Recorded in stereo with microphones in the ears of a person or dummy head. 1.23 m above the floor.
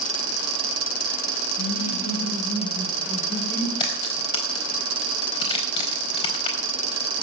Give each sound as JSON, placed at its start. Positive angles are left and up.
{"t": 1.6, "sound": "laughter", "side_deg": 50, "distance_m": 8.0}
{"t": 3.8, "sound": "a crack", "side_deg": 35, "distance_m": 4.5}